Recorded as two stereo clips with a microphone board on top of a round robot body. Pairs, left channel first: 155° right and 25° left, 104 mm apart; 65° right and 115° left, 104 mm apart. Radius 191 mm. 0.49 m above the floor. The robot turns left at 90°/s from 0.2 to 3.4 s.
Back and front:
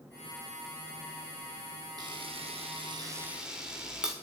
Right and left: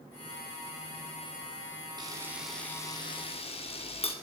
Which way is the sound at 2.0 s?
70° left.